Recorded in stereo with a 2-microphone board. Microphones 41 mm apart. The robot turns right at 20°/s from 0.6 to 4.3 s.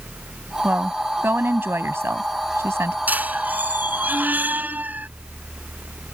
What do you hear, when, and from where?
0.6 s a woman speaking: 135° right; by 3.0 s 90° right
3.1 s a squeak: 45° right (ahead or behind)